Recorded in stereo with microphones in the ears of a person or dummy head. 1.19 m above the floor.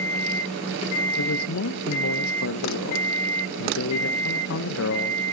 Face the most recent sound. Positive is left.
turn(degrees=70)  # may be behind; listen again after turning